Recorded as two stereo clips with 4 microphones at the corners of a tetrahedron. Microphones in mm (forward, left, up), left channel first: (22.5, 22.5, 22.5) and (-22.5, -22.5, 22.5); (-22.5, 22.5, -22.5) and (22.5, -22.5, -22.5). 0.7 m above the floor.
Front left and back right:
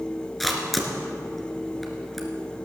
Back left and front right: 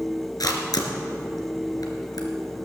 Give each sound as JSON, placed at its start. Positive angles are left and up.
{"t": 0.4, "sound": "a camera shutter", "azimuth_deg": 135, "distance_m": 2.0}